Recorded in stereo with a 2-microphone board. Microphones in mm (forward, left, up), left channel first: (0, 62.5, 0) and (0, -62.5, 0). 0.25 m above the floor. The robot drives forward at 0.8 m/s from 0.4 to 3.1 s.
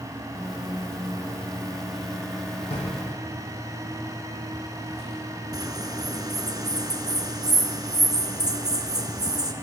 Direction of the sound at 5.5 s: 35° right (ahead or behind).